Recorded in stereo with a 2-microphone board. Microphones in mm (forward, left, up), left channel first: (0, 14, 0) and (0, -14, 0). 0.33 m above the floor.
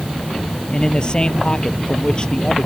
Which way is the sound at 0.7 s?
35° left (ahead or behind).